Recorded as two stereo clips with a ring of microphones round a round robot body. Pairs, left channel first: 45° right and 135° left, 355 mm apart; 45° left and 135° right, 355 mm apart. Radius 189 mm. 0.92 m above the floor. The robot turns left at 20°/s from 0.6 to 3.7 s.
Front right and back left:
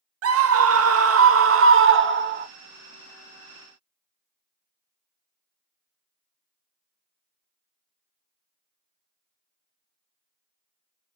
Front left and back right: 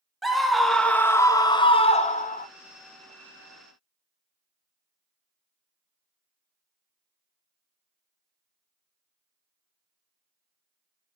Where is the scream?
135° left, 0.8 m; by 2.5 s 95° left, 0.8 m.